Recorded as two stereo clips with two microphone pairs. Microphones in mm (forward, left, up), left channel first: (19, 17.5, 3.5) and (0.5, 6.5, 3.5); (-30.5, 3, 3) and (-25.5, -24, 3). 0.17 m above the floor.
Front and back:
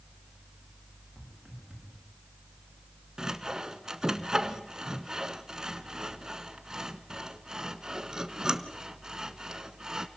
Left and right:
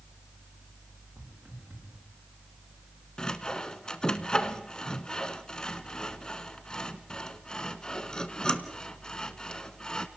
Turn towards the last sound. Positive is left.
turn(degrees=160)